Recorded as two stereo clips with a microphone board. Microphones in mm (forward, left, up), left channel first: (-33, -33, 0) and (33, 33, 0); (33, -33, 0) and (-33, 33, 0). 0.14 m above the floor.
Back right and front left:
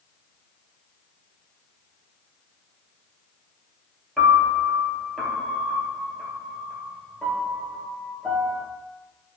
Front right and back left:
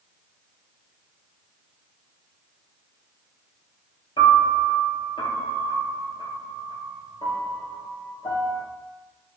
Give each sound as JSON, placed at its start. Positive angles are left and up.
{"t": 4.2, "sound": "a piano", "azimuth_deg": -45, "distance_m": 0.8}